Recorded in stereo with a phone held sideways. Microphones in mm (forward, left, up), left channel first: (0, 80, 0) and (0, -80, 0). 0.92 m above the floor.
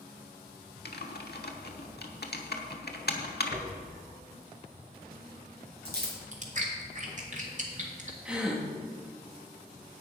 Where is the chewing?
50° right (ahead or behind), 1.8 m.